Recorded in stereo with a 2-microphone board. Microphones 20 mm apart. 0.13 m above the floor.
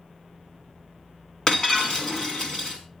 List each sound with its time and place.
1.5 s breaking glass: 35° left (ahead or behind), 3.5 m